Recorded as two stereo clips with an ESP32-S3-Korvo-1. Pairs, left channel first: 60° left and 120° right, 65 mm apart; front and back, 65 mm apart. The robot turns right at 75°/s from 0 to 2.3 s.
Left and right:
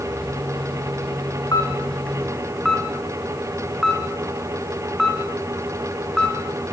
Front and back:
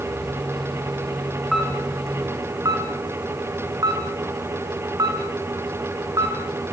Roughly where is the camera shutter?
Left.